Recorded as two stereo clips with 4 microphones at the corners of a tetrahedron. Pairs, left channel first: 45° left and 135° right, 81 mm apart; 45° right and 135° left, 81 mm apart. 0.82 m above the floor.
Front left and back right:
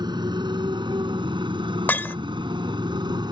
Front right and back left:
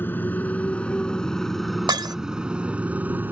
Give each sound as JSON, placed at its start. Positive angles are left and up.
{"t": 0.0, "sound": "a motorcycle", "azimuth_deg": -110}
{"t": 1.9, "sound": "breaking glass", "azimuth_deg": 110}